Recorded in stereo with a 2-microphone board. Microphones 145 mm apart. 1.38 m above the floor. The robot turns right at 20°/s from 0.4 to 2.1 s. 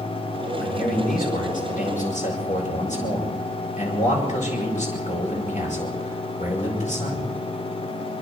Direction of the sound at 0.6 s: 90° left.